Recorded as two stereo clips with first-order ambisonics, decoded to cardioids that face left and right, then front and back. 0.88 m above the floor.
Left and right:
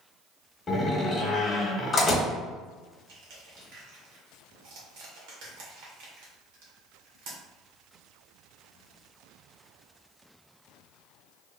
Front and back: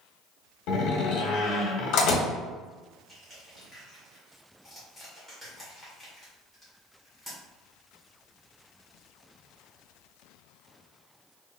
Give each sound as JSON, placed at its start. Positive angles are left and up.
{"t": 0.7, "sound": "a door slam", "azimuth_deg": 15, "distance_m": 1.0}
{"t": 3.1, "sound": "crushing", "azimuth_deg": -90, "distance_m": 1.5}